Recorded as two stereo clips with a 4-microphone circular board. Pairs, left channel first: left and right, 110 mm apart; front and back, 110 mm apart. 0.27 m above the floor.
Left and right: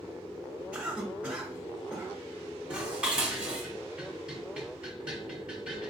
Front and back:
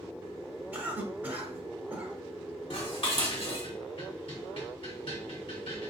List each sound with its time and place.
0.7 s a cough: 140° right, 0.9 m
2.7 s dishes clattering: 15° right, 1.3 m